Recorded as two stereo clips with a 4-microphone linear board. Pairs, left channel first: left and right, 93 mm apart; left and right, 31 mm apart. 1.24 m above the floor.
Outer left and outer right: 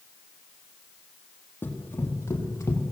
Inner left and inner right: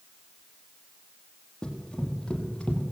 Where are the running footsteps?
20° left (ahead or behind), 3.5 m; by 2.9 s 35° left (ahead or behind), 2.5 m.